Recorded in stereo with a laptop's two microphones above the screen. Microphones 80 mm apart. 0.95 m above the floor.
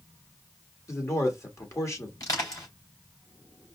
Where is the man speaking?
40° left (ahead or behind), 1.5 m.